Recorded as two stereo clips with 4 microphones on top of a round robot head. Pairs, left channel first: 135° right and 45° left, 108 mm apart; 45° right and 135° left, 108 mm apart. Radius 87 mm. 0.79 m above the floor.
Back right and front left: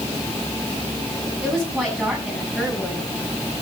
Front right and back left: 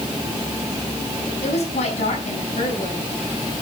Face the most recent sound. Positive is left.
turn(degrees=-50)